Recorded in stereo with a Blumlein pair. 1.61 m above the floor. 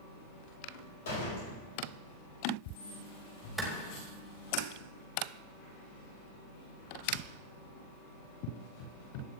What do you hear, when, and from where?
1.1 s a door slam: 60° left, 5.5 m
3.6 s a clap: 10° right, 4 m